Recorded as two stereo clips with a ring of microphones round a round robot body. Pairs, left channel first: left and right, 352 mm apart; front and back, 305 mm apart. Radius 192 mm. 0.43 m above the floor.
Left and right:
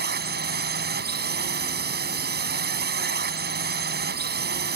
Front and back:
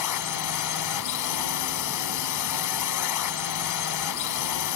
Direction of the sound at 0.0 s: 25° right.